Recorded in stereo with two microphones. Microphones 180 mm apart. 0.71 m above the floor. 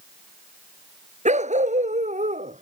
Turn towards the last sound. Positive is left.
turn(degrees=-45)  # may be behind; listen again after turning